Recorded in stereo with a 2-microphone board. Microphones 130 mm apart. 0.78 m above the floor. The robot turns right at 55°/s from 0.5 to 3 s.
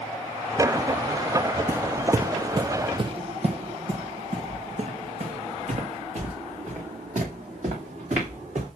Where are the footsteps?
25° right (ahead or behind), 0.8 m; by 8.7 s 60° right (ahead or behind), 4.5 m.